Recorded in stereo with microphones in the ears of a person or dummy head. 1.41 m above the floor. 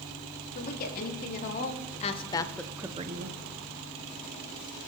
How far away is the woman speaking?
About 3 m.